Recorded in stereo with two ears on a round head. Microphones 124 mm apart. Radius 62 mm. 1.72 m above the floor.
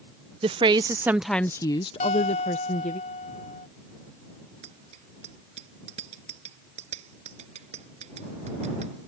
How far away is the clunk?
No clunk in this recording.